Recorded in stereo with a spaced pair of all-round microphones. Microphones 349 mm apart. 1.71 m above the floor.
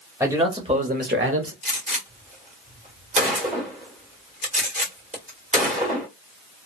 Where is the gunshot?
20° right (ahead or behind), 1.2 m.